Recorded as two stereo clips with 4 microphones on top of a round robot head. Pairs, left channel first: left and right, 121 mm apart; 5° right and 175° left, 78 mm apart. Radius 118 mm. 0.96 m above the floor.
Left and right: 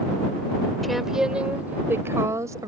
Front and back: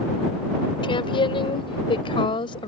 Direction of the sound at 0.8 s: Straight ahead.